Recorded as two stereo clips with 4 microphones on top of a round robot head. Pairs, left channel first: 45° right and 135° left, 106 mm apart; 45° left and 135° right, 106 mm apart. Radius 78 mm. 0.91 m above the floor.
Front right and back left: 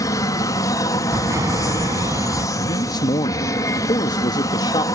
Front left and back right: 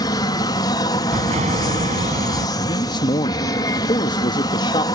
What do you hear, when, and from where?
0.0 s an aircraft: 5° left
1.1 s an explosion: 160° right
2.6 s a man speaking: straight ahead